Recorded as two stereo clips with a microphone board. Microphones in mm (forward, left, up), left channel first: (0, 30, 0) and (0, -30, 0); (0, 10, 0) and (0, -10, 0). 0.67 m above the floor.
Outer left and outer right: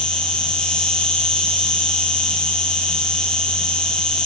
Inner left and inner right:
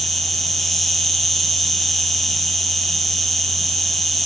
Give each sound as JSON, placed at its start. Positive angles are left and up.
{"t": 0.0, "sound": "an insect", "side_deg": 15, "distance_m": 1.2}